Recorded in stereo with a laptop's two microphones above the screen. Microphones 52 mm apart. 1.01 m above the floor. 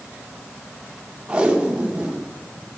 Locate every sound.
1.3 s tape being pulled: 20° right (ahead or behind), 0.6 m